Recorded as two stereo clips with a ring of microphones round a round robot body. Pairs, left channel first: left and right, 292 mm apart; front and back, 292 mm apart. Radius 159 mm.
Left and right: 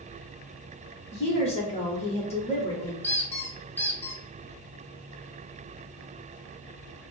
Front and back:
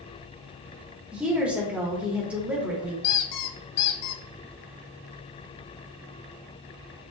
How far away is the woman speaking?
About 1.0 m.